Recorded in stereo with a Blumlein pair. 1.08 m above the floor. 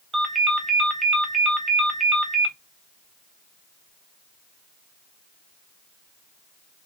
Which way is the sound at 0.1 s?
10° right.